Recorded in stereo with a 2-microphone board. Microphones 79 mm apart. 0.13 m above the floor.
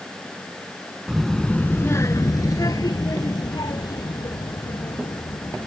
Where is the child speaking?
5° right (ahead or behind); by 5.7 s 60° left (ahead or behind).